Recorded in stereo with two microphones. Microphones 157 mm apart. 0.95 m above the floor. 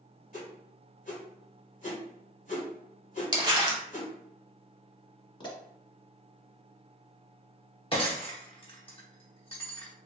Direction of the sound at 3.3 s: 25° right (ahead or behind).